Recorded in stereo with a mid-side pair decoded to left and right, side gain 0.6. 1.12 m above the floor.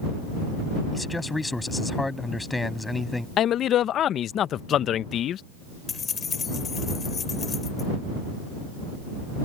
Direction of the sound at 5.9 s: 35° left.